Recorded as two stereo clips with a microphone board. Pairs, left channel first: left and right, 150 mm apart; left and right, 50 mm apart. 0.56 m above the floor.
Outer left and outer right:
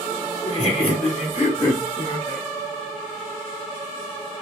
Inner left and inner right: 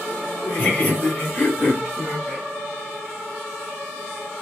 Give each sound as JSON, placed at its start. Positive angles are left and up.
{"t": 0.4, "sound": "laughter", "side_deg": 40, "distance_m": 1.4}